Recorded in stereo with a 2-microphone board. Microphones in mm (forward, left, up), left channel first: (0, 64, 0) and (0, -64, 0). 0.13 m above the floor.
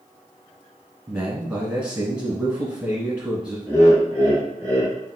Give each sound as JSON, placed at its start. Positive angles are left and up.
{"t": 1.1, "sound": "a man speaking", "side_deg": -10, "distance_m": 1.3}
{"t": 3.7, "sound": "laughter", "side_deg": 10, "distance_m": 2.0}